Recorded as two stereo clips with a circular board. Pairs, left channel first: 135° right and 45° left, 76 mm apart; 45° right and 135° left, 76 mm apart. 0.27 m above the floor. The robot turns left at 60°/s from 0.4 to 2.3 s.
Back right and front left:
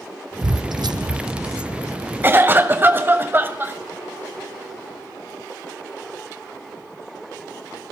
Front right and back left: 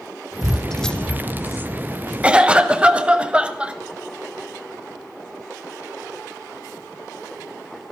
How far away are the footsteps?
About 0.6 m.